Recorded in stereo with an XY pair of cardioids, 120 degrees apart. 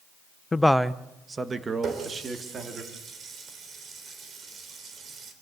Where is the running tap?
45° right, 3.5 m.